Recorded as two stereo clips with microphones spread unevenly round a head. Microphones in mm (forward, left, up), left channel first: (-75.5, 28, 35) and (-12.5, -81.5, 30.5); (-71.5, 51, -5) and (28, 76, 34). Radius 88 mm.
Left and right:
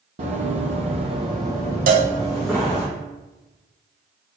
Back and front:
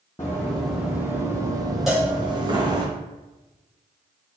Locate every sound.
0.2 s running footsteps: 75° right, 1.5 m; by 2.9 s 35° left, 2.5 m
1.9 s a cowbell: 75° right, 1.0 m